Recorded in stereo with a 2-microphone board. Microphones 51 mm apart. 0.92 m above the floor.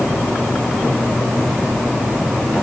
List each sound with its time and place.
Only background noise.